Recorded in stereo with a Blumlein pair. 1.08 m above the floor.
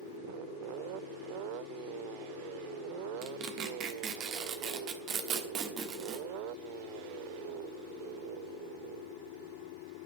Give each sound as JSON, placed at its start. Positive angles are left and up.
{"t": 3.2, "sound": "tearing paper", "azimuth_deg": -30, "distance_m": 1.2}